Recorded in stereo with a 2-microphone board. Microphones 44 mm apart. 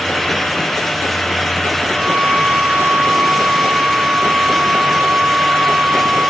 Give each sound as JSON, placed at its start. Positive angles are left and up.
{"t": 1.9, "sound": "a violin", "side_deg": -60, "distance_m": 2.5}